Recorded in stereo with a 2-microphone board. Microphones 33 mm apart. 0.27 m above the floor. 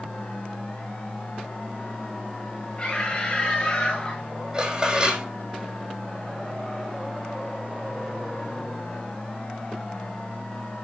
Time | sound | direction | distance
2.8 | a scream | 30° left (ahead or behind) | 5 m
4.5 | dishes clattering | 25° right (ahead or behind) | 7 m